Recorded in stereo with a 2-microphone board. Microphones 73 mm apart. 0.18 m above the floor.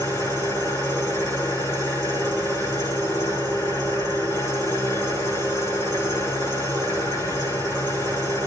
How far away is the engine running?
About 8.5 m.